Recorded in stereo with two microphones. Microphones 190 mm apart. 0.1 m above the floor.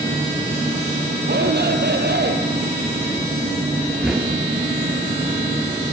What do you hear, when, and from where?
0.0 s an insect: 40° right (ahead or behind), 6 m
1.3 s a shout: 65° right (ahead or behind), 2.5 m
4.0 s knocking: 5° right (ahead or behind), 1.8 m